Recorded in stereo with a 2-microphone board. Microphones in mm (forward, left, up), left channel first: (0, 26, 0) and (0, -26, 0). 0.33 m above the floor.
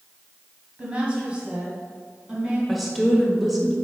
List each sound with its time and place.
0.8 s a woman speaking: 20° right (ahead or behind), 2 m
2.7 s a woman speaking: centre (ahead or behind), 1.3 m